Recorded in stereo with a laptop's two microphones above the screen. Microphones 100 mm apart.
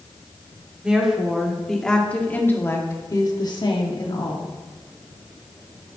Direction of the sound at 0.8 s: 10° right (ahead or behind).